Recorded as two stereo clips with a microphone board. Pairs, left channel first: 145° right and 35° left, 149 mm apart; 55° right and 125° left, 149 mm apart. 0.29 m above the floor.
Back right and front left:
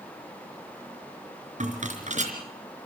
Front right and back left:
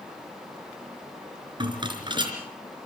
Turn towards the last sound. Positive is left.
turn(degrees=65)